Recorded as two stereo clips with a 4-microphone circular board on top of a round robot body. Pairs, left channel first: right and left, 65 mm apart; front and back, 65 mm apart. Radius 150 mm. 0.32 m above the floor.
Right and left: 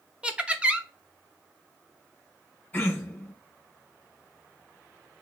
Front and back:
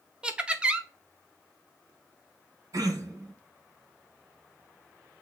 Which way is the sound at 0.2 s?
135° left.